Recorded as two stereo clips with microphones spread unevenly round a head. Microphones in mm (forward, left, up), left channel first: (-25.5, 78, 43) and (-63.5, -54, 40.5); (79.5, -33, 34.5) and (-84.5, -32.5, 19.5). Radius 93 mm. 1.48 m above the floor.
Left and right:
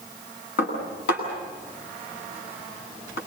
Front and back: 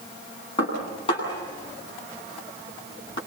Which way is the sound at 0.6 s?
65° left.